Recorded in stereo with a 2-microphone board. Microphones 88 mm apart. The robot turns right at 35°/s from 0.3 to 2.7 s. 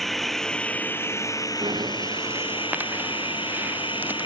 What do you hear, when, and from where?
0.0 s running water: 5° left; by 4.3 s 85° left
1.6 s breathing: 60° right (ahead or behind); by 4.3 s 20° right (ahead or behind)